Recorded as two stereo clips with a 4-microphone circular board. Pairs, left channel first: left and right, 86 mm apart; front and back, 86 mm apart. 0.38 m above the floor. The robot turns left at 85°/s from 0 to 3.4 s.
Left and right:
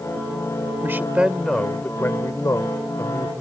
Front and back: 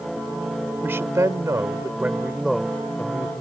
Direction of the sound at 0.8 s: 130° right.